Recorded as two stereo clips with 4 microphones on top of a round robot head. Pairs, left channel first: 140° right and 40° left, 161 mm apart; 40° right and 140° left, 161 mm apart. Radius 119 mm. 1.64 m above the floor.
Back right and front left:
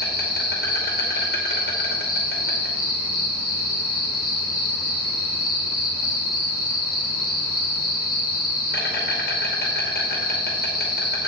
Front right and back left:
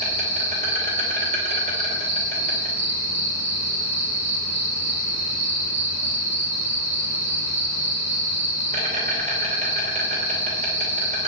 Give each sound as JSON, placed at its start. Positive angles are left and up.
{"t": 0.0, "sound": "an insect", "azimuth_deg": -175, "distance_m": 2.5}